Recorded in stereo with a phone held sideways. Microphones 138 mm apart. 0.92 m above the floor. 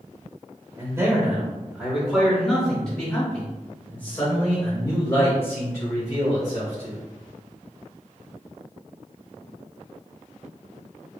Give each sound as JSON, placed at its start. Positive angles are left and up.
{"t": 0.8, "sound": "a man speaking", "side_deg": -20, "distance_m": 1.4}